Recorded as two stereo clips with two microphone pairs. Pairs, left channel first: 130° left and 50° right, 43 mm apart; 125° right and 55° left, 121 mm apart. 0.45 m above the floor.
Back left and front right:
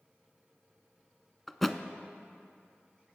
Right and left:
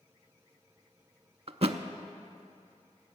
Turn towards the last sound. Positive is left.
turn(degrees=45)